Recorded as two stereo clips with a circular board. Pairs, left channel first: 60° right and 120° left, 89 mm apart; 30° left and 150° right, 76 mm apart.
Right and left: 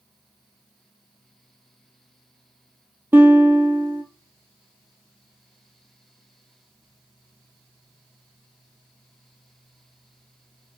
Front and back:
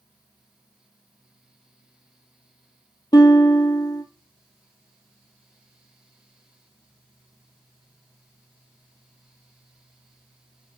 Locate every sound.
3.1 s a guitar: 50° left, 1.3 m